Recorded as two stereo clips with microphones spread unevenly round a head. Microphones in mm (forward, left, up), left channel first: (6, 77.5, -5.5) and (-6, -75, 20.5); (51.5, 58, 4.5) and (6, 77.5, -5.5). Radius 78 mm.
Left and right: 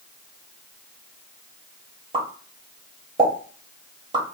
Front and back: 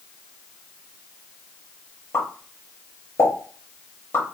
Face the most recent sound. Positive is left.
turn(degrees=-45)